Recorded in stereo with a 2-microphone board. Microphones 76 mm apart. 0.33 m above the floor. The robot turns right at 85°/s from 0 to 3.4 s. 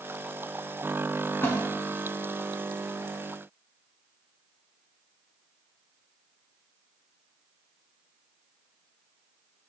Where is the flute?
No flute in this recording.